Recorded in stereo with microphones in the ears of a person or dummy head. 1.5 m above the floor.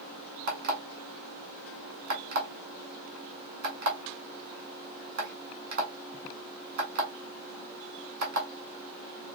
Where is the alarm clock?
50° right (ahead or behind), 2 m.